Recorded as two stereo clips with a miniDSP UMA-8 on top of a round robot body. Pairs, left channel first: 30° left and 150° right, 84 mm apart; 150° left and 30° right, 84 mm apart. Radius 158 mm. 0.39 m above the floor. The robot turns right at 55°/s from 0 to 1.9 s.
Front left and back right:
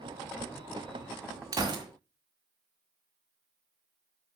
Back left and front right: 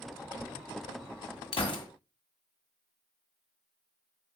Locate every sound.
1.5 s a gunshot: 160° left, 1.9 m; by 1.9 s straight behind, 1.9 m